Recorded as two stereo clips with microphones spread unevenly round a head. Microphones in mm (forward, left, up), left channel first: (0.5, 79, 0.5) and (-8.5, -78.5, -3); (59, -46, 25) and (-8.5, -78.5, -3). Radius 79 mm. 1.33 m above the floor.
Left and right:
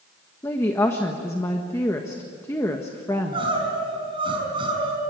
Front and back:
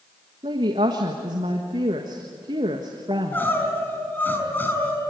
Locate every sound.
0.4 s a woman speaking: 160° left, 1.5 m
3.1 s crying: 30° right, 5.5 m